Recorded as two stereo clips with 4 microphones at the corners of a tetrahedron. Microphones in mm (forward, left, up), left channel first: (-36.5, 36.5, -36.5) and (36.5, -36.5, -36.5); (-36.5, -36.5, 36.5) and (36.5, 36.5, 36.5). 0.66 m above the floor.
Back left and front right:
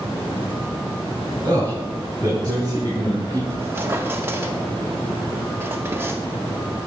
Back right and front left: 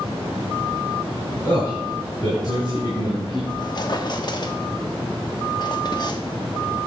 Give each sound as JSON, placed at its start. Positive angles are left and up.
{"t": 1.4, "sound": "a man speaking", "azimuth_deg": -85, "distance_m": 2.5}
{"t": 3.5, "sound": "a squeak", "azimuth_deg": -105, "distance_m": 0.8}